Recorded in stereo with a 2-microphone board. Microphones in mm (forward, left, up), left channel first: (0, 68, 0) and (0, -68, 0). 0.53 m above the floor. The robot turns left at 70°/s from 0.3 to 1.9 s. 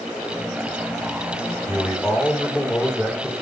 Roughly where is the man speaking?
Centre.